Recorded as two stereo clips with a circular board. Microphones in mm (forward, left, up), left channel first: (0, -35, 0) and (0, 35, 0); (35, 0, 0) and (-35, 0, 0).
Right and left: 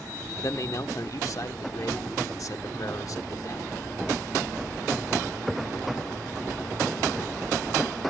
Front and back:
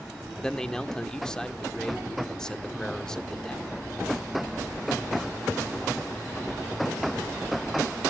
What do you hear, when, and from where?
0.4 s a man speaking: 80° right, 1.2 m